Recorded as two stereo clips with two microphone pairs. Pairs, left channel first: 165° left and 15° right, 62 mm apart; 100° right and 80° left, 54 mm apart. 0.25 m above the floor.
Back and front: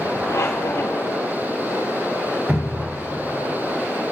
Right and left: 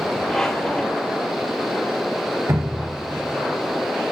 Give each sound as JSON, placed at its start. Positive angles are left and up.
{"t": 0.3, "sound": "a squeak", "azimuth_deg": 180, "distance_m": 4.0}
{"t": 2.5, "sound": "dripping", "azimuth_deg": 50, "distance_m": 1.8}